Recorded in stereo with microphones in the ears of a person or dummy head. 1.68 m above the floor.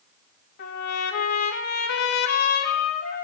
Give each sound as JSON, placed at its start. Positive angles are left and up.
{"t": 0.6, "sound": "a trumpet", "side_deg": 55, "distance_m": 2.5}